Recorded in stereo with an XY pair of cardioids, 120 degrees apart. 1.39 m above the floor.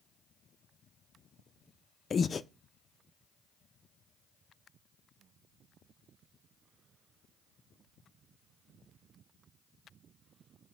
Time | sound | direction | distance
2.1 | breathing | 35° left | 0.5 m